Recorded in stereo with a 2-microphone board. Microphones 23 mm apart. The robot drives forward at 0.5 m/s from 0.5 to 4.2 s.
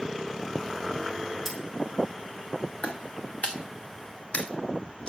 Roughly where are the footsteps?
Left.